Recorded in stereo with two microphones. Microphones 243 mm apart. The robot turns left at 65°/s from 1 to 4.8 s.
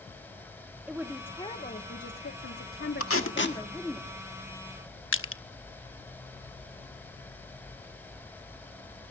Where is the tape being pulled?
70° left (ahead or behind), 1.5 m; by 3.6 s 40° left (ahead or behind), 1.5 m.